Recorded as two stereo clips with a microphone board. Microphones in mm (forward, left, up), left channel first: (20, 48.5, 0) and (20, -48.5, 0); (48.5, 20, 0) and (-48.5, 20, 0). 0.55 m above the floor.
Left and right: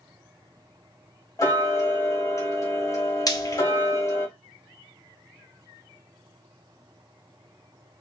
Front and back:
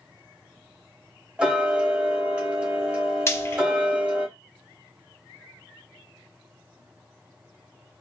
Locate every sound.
1.4 s ticking: 110° left, 1.3 m
3.3 s frying: 55° left, 0.7 m